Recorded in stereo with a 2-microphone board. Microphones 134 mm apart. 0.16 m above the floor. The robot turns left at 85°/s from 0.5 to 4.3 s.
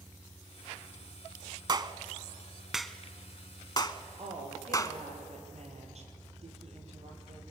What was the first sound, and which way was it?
A clap, 35° right (ahead or behind).